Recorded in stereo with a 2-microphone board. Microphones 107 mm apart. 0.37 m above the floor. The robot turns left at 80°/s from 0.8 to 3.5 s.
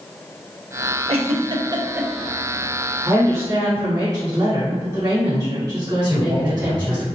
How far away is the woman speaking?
About 1.5 m.